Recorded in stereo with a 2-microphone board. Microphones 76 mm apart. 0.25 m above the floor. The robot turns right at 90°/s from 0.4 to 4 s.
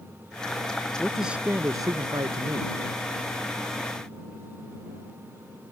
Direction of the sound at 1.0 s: 165° left.